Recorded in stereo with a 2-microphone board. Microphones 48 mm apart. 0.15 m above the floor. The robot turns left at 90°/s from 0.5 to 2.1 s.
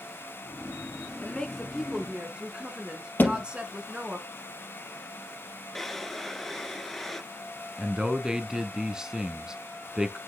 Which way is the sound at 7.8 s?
15° right (ahead or behind).